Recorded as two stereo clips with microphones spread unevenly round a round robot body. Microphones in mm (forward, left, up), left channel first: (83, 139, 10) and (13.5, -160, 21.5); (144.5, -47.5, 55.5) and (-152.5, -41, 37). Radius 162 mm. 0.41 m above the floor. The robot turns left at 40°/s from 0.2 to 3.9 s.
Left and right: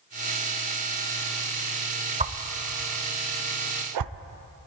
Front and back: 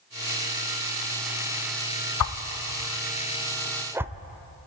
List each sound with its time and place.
2.2 s a whoosh: 30° right, 0.6 m; by 4.1 s 100° right, 0.6 m